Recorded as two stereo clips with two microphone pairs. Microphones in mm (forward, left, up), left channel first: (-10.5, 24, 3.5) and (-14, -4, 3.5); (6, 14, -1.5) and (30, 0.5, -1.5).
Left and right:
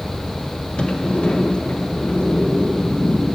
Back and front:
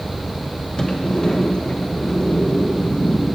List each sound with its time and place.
0.8 s a sliding door: 100° left, 1.1 m